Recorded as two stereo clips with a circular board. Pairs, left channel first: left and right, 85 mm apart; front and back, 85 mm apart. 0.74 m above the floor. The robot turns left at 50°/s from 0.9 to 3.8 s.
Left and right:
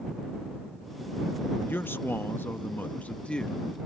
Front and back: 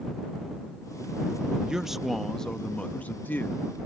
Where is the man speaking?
110° left; by 3.6 s 20° left.